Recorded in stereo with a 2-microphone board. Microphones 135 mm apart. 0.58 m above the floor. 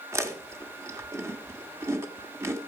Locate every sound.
0.1 s chewing: 20° right (ahead or behind), 1.1 m